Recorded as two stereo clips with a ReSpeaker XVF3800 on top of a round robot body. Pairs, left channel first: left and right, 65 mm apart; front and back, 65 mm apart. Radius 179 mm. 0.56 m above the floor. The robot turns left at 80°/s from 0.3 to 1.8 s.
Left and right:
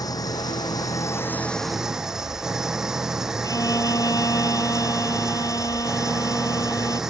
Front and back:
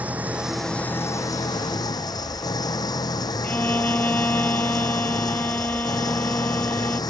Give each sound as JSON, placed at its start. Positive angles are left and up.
{"t": 0.0, "sound": "an engine running", "azimuth_deg": 110}
{"t": 3.4, "sound": "a violin", "azimuth_deg": 65}